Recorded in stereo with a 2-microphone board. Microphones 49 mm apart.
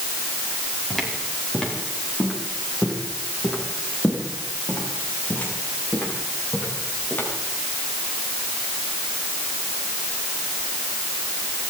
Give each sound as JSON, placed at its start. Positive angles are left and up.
{"t": 0.9, "sound": "footsteps", "side_deg": 0, "distance_m": 8.0}